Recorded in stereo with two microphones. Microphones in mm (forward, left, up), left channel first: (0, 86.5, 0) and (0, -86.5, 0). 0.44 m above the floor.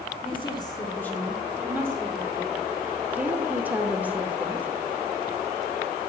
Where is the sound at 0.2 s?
30° left (ahead or behind), 1.2 m; by 2.7 s 30° right (ahead or behind), 1.5 m.